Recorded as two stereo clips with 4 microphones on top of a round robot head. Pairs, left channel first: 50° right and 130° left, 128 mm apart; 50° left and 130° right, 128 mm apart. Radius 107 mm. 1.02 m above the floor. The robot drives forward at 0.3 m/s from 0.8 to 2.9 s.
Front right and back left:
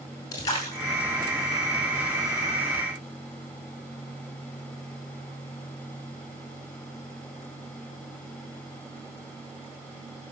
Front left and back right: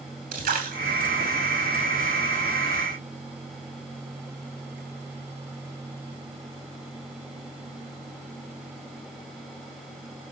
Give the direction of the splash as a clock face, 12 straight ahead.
4 o'clock.